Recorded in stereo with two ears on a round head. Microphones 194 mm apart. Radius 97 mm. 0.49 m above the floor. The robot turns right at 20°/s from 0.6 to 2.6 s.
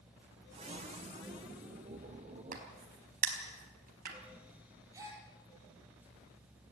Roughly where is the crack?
Right.